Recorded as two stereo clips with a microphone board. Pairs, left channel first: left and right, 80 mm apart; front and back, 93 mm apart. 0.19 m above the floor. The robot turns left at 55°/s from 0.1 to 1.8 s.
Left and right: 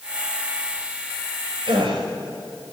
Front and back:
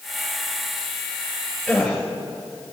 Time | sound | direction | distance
1.7 | a gasp | 85° right | 3.5 m